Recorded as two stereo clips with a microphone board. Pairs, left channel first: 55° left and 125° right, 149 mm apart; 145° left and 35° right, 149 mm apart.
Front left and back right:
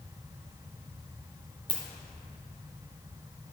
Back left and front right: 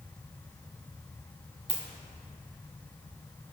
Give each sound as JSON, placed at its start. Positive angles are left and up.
{"t": 1.7, "sound": "a ringtone", "azimuth_deg": 5, "distance_m": 1.4}